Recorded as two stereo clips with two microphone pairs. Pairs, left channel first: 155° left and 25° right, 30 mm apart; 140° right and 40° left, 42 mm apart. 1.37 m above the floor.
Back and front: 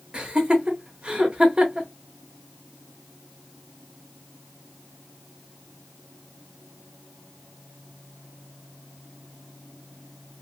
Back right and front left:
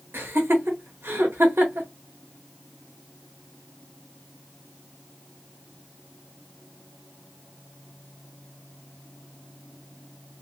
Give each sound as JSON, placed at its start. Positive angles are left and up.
{"t": 0.1, "sound": "laughter", "azimuth_deg": 25, "distance_m": 1.2}